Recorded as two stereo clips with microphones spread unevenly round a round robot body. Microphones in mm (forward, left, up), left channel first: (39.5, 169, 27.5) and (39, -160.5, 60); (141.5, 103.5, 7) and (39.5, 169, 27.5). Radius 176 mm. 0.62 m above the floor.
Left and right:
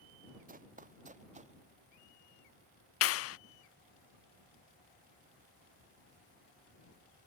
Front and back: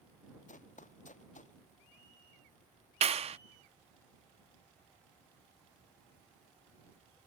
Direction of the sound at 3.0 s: 115° left.